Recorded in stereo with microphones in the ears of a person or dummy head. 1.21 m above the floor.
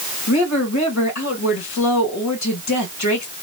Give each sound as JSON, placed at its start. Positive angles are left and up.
{"t": 0.3, "sound": "a woman speaking", "side_deg": 70, "distance_m": 2.0}